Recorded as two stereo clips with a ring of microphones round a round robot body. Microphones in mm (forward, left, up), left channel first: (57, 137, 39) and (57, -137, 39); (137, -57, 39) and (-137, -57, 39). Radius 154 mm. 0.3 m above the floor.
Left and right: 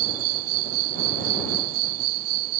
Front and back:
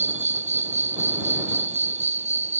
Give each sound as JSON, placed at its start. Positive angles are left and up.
{"t": 0.0, "sound": "an insect", "azimuth_deg": -115}